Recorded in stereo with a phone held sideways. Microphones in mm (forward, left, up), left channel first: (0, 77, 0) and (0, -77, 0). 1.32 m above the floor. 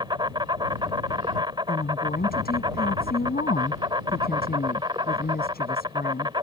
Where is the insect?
30° right (ahead or behind).